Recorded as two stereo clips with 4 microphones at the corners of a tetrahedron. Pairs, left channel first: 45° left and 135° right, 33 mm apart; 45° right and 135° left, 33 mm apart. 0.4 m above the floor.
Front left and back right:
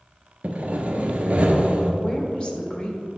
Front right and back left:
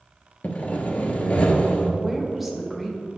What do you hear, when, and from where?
0.4 s sawing: 90° right, 1.0 m
2.0 s a woman speaking: 45° left, 1.3 m